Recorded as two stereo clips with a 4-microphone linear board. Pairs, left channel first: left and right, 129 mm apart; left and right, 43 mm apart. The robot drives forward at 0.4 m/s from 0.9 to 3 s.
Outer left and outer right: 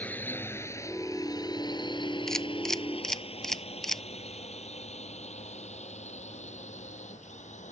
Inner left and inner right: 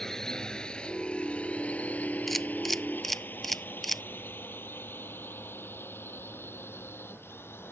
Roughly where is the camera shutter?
Centre.